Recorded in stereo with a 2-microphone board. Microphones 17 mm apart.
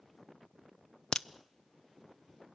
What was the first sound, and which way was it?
A crack, 55° left (ahead or behind).